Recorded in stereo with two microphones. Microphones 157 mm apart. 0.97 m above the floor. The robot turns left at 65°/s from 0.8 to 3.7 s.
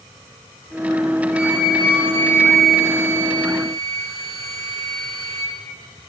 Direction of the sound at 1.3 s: 120° left.